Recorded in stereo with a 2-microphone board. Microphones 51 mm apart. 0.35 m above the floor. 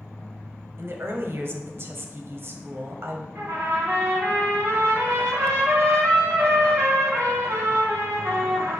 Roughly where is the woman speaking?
Right.